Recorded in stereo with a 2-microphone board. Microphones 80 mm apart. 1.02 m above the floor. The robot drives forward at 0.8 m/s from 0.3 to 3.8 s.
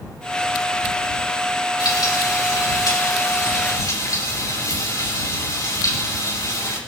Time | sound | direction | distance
1.8 | frying | 60° left (ahead or behind) | 6 m